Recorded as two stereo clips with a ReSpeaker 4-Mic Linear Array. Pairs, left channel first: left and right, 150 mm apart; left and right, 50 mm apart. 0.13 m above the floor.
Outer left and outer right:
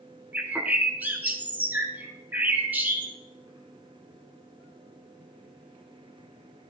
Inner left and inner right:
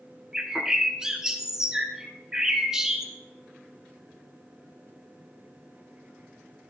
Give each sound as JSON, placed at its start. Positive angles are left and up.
{"t": 0.3, "sound": "a bird", "side_deg": -10, "distance_m": 1.3}